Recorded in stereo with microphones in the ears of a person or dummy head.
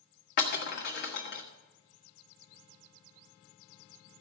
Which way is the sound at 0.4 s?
50° left (ahead or behind).